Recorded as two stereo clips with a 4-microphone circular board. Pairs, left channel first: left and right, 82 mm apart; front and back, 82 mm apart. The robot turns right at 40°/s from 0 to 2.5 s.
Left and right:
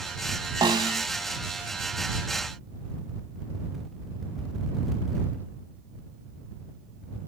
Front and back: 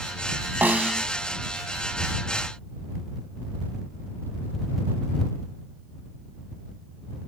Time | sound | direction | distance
0.6 | a snare drum | 110° right | ?